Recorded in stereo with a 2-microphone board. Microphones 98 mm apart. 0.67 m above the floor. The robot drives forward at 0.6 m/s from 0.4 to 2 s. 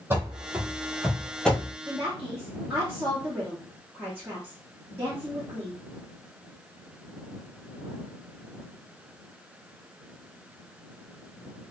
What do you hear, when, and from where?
0.1 s running footsteps: 25° right (ahead or behind), 1.0 m; by 1.8 s 20° left (ahead or behind), 0.7 m
1.9 s a woman speaking: 20° right (ahead or behind), 0.7 m